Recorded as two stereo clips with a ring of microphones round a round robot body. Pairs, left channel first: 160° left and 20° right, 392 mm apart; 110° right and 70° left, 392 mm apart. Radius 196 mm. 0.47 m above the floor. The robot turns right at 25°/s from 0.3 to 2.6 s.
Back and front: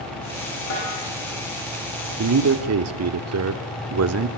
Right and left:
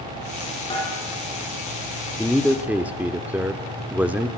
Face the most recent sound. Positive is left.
turn(degrees=-15)